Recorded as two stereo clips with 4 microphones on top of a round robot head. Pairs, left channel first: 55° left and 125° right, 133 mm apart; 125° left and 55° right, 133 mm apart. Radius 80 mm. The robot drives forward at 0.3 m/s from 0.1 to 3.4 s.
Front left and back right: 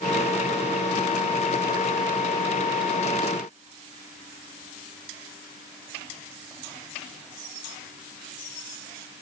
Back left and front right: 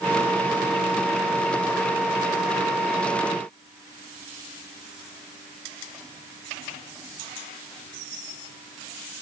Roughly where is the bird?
I don't hear a bird.